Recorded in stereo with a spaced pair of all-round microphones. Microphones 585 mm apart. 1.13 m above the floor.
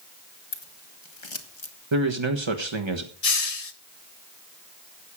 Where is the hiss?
75° left (ahead or behind), 1.2 m.